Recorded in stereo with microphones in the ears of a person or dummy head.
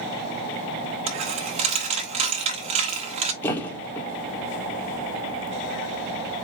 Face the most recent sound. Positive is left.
turn(degrees=10)  # may be behind; listen again after turning